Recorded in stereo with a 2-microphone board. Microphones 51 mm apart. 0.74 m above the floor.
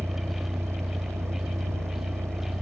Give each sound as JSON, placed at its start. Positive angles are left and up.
{"t": 0.0, "sound": "a vehicle", "side_deg": -65}